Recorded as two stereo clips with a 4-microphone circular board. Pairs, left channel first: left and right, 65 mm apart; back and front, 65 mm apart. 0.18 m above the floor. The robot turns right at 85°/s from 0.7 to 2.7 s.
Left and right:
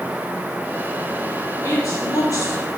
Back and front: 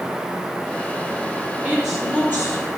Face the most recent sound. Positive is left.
turn(degrees=150)